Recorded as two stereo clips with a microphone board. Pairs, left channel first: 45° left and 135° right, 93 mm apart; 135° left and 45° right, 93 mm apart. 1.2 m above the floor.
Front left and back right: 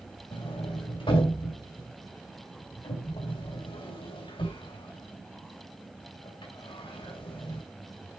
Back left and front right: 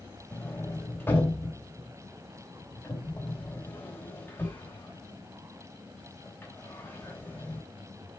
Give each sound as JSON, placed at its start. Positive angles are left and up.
{"t": 0.3, "sound": "a sliding door", "azimuth_deg": 70, "distance_m": 2.5}